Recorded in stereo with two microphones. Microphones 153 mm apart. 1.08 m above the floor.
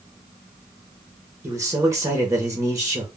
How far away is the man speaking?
About 0.8 m.